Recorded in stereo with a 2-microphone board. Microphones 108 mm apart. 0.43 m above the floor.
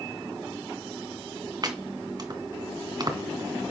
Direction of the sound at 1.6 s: 40° right (ahead or behind).